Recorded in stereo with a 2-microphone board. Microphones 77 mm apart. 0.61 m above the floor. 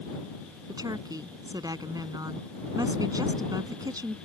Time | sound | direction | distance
0.7 | a woman speaking | 60° right (ahead or behind) | ?